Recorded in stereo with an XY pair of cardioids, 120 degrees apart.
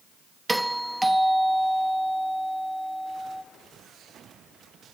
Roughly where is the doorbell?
Ahead.